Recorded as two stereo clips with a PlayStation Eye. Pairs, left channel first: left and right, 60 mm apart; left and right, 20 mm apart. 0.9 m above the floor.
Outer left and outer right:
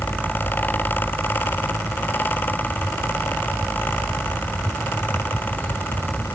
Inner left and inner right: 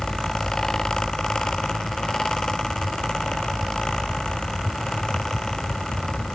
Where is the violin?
I don't hear a violin.